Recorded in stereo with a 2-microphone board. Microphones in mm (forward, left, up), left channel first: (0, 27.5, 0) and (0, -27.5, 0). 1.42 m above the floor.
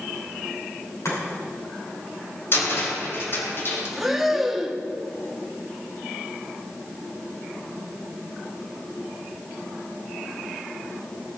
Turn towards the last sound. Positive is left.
turn(degrees=-5)  # may be behind; listen again after turning